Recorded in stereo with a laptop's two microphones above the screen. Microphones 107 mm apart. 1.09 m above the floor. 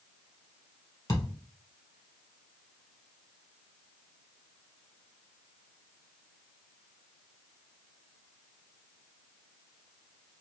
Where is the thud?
30° left (ahead or behind), 1.4 m.